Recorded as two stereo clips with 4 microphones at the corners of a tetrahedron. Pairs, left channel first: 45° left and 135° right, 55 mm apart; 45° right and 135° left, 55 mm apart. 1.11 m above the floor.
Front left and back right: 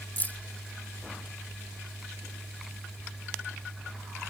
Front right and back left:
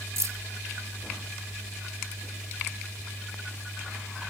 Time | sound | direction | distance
0.2 | keys jangling | 105° left | ?